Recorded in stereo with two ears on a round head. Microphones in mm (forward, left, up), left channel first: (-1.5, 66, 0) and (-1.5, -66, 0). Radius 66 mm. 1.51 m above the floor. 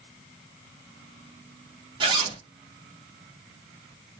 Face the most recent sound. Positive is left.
turn(degrees=-35)  # may be behind; listen again after turning